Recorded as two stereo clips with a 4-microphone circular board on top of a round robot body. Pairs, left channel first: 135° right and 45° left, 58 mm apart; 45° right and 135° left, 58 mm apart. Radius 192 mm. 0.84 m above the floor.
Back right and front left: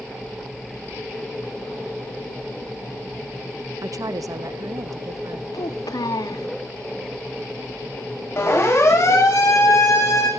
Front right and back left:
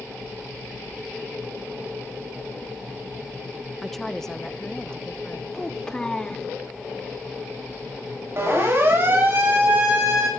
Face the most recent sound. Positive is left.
turn(degrees=-160)